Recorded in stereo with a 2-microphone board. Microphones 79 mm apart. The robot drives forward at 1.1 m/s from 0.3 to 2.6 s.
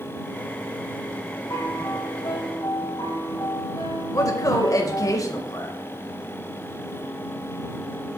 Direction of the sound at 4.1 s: 45° left (ahead or behind).